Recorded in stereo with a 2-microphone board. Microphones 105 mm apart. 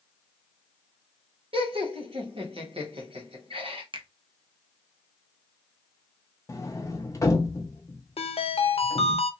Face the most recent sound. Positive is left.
turn(degrees=75)  # may be behind; listen again after turning